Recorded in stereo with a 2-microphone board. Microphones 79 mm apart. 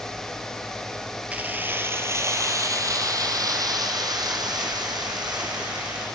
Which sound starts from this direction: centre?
Keys jangling, at 1.3 s.